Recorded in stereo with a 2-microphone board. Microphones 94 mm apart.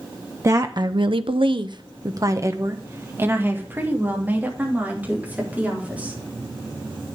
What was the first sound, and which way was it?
A woman speaking, 35° right (ahead or behind).